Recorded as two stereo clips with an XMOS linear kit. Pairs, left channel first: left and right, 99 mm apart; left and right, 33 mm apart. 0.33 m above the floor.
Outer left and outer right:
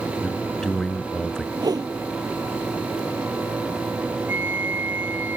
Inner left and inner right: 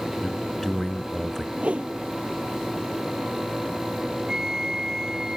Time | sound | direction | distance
0.2 | a man speaking | 5° left (ahead or behind) | ?
1.6 | a whoosh | 40° right (ahead or behind) | ?
4.3 | a flute | 20° right (ahead or behind) | ?